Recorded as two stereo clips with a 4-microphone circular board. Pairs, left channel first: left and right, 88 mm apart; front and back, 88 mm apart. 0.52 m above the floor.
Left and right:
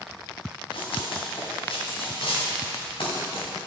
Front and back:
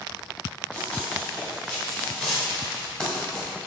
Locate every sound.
0.7 s running footsteps: 80° left, 3 m